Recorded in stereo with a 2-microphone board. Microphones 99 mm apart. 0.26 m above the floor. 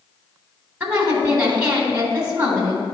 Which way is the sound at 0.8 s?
15° right (ahead or behind).